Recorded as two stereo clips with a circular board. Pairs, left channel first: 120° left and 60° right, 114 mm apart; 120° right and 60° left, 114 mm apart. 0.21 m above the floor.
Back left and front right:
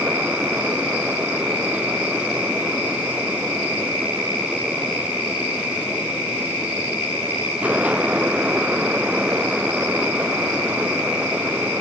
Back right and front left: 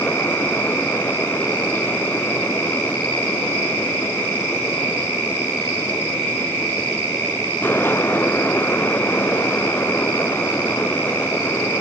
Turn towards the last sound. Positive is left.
No sound to turn to.